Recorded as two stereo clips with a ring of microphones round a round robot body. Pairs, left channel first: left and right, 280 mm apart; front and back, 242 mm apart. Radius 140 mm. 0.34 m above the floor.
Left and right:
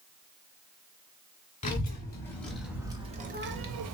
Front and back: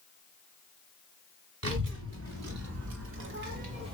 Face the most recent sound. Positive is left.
turn(degrees=-110)